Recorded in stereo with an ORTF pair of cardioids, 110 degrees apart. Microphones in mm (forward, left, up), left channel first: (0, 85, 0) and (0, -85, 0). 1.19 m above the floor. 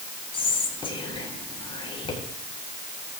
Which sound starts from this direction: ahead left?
Whispering, at 0.3 s.